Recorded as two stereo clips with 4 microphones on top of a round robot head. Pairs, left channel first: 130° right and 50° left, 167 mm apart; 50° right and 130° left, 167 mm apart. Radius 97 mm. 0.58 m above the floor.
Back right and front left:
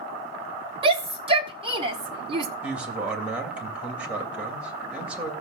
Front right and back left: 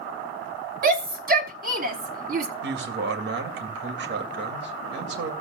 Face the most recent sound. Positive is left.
turn(degrees=135)